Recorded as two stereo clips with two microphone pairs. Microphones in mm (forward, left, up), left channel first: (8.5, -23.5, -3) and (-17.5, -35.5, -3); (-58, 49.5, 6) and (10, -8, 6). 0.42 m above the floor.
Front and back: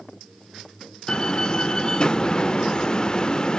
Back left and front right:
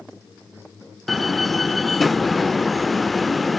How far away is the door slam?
About 0.5 m.